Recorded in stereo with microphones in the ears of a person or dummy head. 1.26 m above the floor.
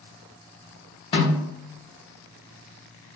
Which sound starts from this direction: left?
A snare drum, at 1.1 s.